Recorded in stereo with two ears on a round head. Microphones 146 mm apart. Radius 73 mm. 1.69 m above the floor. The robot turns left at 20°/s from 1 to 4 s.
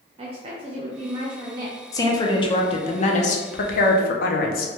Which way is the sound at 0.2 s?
35° right (ahead or behind).